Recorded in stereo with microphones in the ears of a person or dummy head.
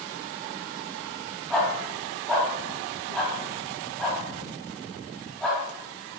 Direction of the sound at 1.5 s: Centre (ahead or behind).